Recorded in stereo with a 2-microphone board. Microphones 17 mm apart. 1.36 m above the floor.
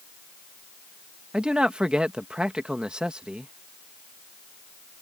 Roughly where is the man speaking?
Right.